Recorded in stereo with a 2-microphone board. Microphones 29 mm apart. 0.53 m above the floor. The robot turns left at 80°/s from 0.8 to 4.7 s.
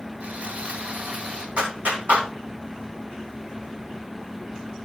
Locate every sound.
0.2 s sawing: 75° right, 2.5 m; by 1.5 s 130° right, 2.5 m
1.6 s a clap: 55° right (ahead or behind), 3 m; by 2.3 s 65° right (ahead or behind), 3 m